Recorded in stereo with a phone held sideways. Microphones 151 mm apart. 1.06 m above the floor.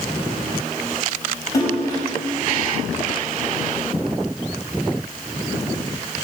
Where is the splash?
25° left (ahead or behind), 5.5 m.